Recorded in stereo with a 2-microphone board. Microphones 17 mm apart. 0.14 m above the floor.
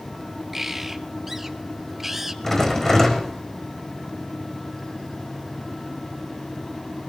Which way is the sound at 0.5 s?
20° right (ahead or behind).